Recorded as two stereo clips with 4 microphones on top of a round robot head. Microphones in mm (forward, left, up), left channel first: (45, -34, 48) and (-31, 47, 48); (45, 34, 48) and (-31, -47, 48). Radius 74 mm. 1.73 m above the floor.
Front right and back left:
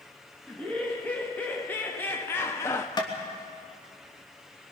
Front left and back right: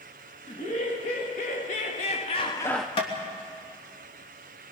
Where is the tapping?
5° left, 3 m.